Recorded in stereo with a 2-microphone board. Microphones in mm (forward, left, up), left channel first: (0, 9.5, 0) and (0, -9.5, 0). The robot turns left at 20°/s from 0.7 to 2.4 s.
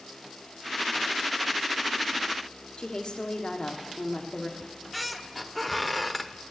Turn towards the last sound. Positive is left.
turn(degrees=0)  # may be behind; listen again after turning